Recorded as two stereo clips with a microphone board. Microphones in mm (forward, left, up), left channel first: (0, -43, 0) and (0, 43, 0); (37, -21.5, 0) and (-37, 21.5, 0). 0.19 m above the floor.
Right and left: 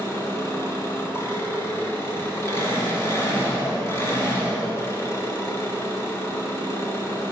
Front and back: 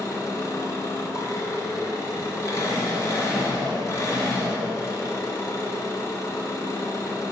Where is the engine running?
55° right, 1.6 m.